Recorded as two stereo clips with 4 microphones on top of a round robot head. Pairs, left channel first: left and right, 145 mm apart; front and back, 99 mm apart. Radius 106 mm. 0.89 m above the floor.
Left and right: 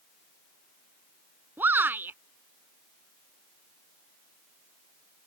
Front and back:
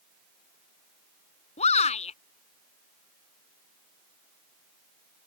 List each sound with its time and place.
1.6 s a shout: 10° right